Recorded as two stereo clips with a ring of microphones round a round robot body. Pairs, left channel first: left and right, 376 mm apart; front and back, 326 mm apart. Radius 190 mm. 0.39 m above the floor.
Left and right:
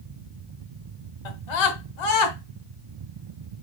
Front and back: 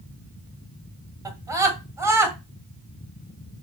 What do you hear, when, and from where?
1.2 s a scream: 100° left, 3 m; by 2.4 s 95° left, 3.5 m